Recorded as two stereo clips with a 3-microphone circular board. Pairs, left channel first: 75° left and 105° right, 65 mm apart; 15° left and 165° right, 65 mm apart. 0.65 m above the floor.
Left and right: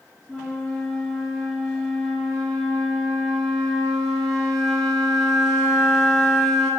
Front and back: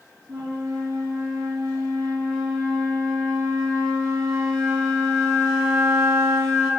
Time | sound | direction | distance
0.3 | a flute | 165° left | 3 m